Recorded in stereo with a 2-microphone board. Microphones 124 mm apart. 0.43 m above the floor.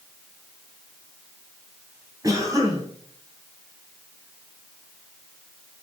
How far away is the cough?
About 3.5 m.